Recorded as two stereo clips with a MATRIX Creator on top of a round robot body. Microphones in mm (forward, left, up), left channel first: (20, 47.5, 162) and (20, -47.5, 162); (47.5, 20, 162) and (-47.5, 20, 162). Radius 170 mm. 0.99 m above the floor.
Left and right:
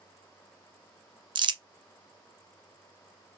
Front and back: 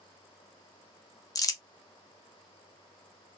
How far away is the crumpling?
About 0.5 m.